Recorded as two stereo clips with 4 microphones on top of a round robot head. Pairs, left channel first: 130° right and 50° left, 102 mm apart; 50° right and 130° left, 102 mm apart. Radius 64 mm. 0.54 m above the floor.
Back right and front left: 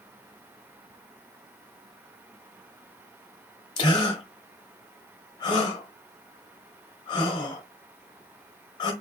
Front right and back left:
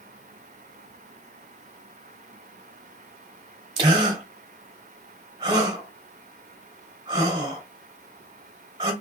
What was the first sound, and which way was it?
A gasp, straight behind.